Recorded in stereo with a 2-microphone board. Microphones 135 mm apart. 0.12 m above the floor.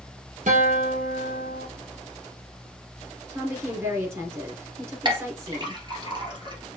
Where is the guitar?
65° right (ahead or behind), 1.6 m.